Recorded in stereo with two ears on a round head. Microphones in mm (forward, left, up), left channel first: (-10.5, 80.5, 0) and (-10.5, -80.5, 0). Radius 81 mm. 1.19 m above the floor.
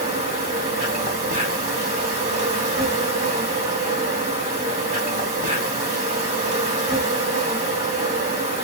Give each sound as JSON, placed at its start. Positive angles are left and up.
{"t": 0.0, "sound": "an insect", "side_deg": -35, "distance_m": 2.0}